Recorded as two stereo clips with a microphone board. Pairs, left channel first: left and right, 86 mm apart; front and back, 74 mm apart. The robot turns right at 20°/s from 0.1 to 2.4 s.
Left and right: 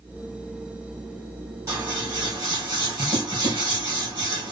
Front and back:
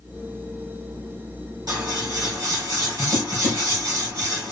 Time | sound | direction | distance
1.7 | scissors | 145° right | 3 m